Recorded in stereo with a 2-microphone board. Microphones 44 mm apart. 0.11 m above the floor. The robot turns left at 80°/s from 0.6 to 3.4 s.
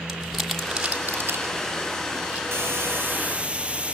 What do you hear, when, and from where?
0.1 s crumpling: centre (ahead or behind), 3.5 m; by 2.4 s 35° right (ahead or behind), 3.5 m
2.5 s a hiss: 80° right, 1.8 m; by 4.0 s 150° right, 1.8 m